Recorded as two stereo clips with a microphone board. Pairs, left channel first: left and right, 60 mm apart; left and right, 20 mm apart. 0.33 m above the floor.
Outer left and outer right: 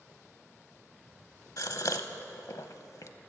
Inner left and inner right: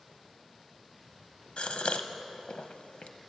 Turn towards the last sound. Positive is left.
turn(degrees=65)  # may be behind; listen again after turning